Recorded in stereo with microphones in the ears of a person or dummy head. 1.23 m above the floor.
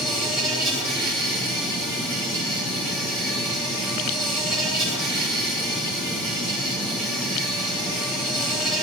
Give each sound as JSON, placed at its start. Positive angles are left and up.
{"t": 0.0, "sound": "an insect", "side_deg": -10, "distance_m": 9.5}